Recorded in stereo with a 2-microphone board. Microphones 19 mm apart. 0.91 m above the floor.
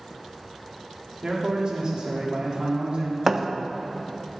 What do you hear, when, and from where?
1.2 s a man speaking: 40° right (ahead or behind), 1.8 m
3.3 s a thud: 20° right (ahead or behind), 0.5 m